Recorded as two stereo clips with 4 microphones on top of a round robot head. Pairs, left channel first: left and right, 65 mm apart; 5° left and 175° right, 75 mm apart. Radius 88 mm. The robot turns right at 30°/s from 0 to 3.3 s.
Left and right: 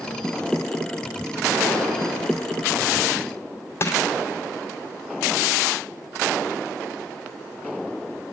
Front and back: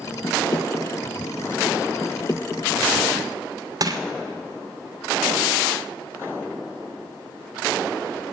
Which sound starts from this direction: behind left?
Crushing, at 3.8 s.